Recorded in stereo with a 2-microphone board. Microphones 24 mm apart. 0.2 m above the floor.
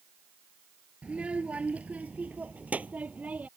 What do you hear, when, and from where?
1.0 s a child speaking: 50° right (ahead or behind); by 3.5 s 80° right